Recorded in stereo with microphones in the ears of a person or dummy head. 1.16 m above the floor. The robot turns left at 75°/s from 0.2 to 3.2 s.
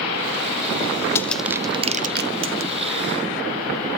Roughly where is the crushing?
Centre.